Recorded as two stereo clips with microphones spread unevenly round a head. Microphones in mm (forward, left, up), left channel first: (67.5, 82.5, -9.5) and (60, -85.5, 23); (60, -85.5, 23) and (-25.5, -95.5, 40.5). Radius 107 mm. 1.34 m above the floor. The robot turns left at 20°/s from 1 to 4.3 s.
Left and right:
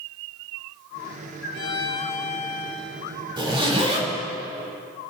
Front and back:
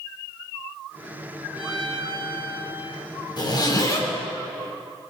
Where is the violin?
85° left, 2 m; by 3.1 s 55° left, 2 m.